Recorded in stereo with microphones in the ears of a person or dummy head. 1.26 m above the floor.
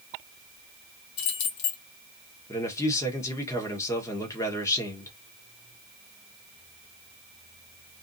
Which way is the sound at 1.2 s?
65° left (ahead or behind).